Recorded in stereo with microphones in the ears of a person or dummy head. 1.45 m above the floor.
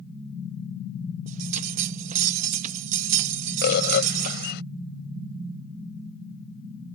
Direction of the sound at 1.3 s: 45° right (ahead or behind).